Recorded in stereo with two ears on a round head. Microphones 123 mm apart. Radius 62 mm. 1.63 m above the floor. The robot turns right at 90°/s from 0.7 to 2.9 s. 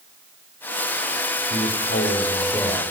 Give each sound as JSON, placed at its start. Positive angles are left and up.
{"t": 1.5, "sound": "a man speaking", "azimuth_deg": 70, "distance_m": 4.5}